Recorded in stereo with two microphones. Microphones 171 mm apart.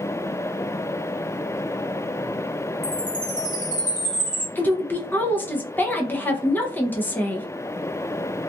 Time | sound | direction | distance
2.8 | a chime | 45° left (ahead or behind) | 1.3 m
4.5 | a woman speaking | 10° left (ahead or behind) | 0.5 m